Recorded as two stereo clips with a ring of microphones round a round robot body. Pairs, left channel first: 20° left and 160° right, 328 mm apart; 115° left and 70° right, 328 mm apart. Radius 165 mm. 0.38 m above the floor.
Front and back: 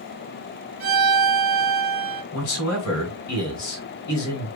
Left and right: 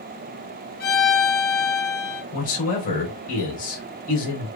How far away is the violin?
About 1.3 m.